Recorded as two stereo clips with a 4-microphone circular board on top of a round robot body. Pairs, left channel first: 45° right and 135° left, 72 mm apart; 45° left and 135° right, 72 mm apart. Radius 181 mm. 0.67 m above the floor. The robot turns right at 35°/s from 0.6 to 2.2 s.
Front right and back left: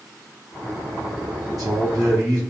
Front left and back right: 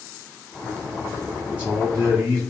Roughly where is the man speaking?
Behind left.